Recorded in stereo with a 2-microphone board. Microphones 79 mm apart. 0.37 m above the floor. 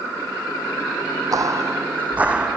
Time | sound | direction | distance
1.3 | footsteps | 50° right (ahead or behind) | 0.8 m